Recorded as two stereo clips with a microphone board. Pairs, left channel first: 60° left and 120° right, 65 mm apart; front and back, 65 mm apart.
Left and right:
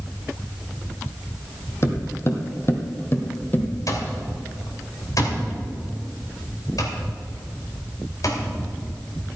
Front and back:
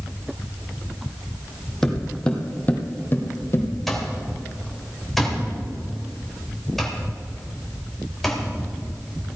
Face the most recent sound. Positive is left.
turn(degrees=85)